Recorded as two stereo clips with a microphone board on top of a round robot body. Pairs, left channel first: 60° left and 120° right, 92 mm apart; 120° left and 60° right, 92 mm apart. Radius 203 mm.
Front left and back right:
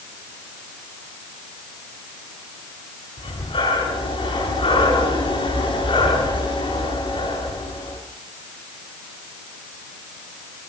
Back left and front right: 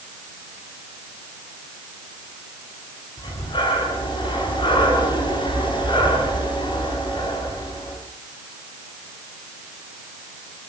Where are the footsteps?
I don't hear footsteps.